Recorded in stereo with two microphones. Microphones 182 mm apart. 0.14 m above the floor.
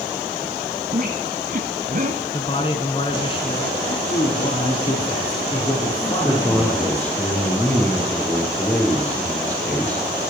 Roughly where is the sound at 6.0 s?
Centre.